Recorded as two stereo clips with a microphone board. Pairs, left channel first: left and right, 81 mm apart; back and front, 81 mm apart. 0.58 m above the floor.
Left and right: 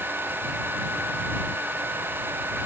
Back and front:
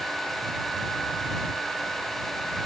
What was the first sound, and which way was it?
Only background noise.